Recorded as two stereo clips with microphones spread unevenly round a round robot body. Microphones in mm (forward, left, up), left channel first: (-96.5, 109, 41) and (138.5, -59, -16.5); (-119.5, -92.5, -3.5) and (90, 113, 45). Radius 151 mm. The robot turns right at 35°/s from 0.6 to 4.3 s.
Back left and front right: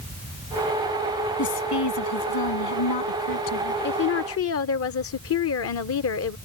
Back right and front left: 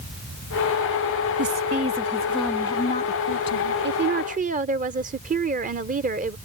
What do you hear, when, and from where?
1.4 s a woman speaking: 100° left; by 3.7 s 175° right
3.8 s a woman speaking: 95° left; by 6.4 s 110° left